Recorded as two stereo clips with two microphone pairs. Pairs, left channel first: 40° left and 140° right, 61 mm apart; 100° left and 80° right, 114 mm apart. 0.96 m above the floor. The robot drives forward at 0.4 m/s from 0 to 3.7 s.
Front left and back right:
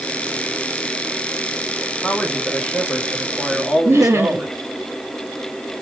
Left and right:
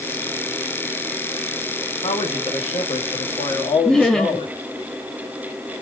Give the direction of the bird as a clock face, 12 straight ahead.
I don't hear a bird.